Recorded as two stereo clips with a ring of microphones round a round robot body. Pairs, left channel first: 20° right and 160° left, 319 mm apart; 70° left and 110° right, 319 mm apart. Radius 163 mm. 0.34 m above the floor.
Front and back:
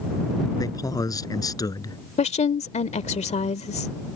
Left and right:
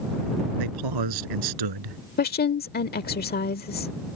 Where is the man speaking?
100° right.